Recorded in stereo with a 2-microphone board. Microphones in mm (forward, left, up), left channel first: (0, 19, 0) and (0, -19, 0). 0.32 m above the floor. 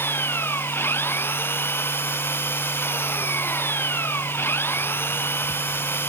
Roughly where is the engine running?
Left.